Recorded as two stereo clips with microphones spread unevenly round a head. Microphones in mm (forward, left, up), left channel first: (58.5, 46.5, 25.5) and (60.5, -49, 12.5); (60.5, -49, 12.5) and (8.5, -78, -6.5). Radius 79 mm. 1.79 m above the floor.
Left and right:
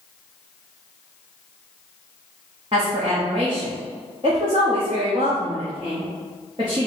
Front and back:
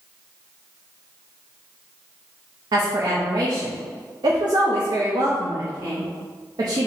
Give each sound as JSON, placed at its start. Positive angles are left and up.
{"t": 2.7, "sound": "a woman speaking", "azimuth_deg": -150, "distance_m": 0.8}